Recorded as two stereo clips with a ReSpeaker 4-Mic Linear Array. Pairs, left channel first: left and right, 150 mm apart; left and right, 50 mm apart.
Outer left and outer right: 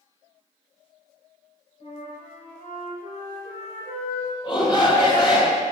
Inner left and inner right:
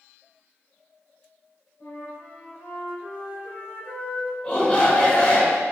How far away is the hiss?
No hiss in this recording.